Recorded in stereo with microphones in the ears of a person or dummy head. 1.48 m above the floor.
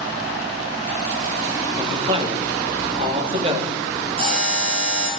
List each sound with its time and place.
1.8 s a man speaking: 30° right (ahead or behind), 3 m
4.2 s a buzzer: 35° right (ahead or behind), 7.5 m